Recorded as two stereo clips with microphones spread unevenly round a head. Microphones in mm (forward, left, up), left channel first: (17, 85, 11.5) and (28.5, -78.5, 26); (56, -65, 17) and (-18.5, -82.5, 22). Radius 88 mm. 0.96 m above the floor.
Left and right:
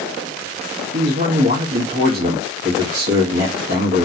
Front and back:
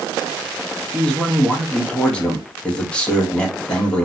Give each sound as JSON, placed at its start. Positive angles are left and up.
{"t": 0.9, "sound": "a man speaking", "azimuth_deg": -60, "distance_m": 1.6}